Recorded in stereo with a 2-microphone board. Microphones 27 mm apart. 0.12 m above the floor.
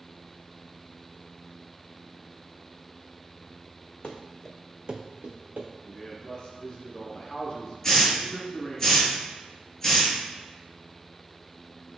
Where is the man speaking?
30° left (ahead or behind), 1.1 m.